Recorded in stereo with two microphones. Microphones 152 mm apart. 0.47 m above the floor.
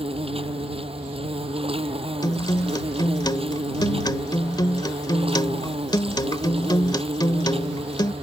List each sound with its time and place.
0.0 s an insect: 40° right (ahead or behind)
2.2 s a guitar: 30° left (ahead or behind)